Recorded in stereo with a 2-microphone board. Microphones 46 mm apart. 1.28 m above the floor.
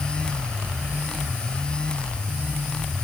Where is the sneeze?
No sneeze in this recording.